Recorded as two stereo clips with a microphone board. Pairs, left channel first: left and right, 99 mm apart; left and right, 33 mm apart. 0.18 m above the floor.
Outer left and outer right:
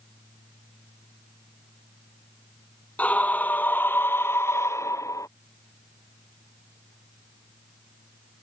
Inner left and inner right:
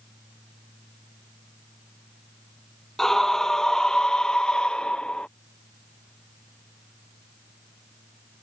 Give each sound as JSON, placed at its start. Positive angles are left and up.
{"t": 3.0, "sound": "a scream", "side_deg": 15}